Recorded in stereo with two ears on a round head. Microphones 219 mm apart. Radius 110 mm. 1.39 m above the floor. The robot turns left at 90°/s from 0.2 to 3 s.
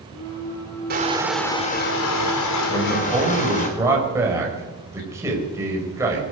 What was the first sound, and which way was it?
Crushing, 140° right.